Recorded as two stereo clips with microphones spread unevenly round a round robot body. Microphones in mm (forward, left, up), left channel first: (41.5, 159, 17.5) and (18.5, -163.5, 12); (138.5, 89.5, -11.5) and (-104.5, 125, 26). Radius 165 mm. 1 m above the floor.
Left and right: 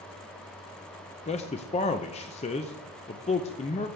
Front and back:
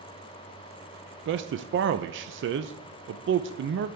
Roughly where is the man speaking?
Behind left.